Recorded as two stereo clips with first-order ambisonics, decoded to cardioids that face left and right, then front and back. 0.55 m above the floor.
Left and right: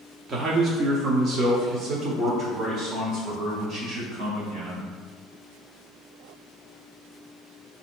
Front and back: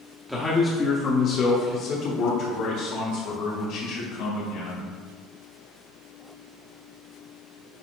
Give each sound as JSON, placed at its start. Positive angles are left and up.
{"t": 0.3, "sound": "a man speaking", "azimuth_deg": -95, "distance_m": 0.8}